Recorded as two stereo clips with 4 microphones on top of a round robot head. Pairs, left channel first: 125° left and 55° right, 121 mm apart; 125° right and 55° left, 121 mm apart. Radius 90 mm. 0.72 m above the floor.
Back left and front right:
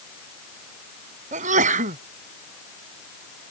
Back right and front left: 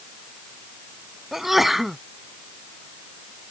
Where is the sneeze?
35° right.